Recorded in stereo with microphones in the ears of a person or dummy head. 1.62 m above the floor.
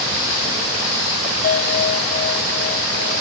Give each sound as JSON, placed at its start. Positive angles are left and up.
{"t": 1.4, "sound": "a bell", "side_deg": 45}